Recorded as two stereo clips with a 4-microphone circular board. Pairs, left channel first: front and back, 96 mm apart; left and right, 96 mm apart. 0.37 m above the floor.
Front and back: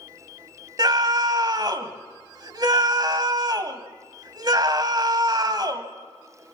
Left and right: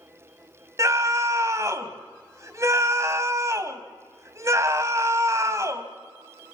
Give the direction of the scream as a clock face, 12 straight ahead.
5 o'clock.